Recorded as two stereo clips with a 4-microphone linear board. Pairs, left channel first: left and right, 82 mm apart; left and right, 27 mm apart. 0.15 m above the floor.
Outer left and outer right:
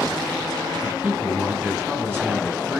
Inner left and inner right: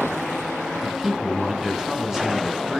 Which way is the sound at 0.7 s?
25° right (ahead or behind).